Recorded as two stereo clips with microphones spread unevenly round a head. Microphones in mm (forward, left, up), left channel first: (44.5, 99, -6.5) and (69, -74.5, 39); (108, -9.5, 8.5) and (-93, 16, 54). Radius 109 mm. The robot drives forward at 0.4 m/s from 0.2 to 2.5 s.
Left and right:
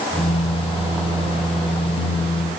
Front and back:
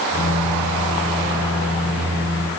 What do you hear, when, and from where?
Only background noise.